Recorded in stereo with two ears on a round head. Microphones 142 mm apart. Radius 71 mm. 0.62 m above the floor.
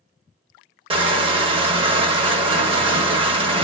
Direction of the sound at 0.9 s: 35° right (ahead or behind).